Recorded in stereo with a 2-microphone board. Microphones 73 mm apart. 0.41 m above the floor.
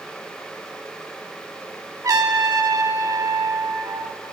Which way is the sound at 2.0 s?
55° right (ahead or behind).